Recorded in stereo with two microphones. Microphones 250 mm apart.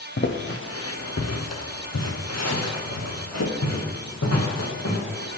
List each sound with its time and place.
0.2 s footsteps: 50° left (ahead or behind), 0.9 m; by 5.4 s 80° left, 3 m